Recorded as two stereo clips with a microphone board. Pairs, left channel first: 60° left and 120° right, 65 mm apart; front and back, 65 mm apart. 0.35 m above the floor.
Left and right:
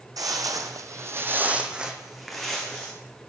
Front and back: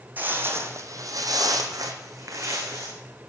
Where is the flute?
I don't hear a flute.